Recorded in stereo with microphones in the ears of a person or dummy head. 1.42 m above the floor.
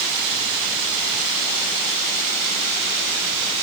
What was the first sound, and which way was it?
Only background noise.